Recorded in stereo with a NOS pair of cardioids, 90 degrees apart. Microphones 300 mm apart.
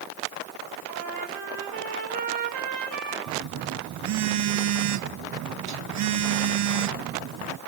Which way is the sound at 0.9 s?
70° right.